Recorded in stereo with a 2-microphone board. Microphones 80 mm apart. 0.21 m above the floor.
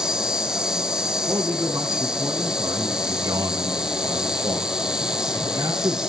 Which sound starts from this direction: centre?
An insect, at 0.0 s.